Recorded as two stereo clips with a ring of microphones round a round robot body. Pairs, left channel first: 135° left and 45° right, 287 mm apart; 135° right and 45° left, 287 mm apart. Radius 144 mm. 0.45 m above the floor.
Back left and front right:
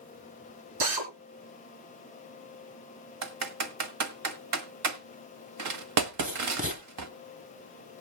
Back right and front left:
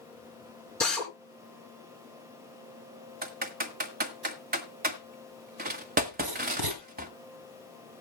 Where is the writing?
20° left, 2.5 m.